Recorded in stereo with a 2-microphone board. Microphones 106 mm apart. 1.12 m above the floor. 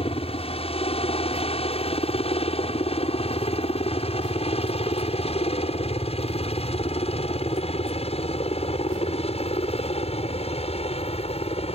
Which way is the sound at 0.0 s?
65° left (ahead or behind).